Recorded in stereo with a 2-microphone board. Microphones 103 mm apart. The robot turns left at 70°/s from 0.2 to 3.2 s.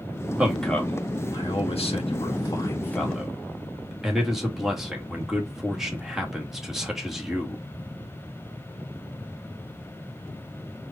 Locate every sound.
0.4 s a man speaking: 15° right (ahead or behind), 1.5 m; by 7.6 s centre (ahead or behind), 1.5 m